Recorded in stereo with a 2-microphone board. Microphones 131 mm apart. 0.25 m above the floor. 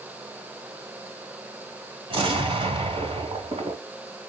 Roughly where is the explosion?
Right.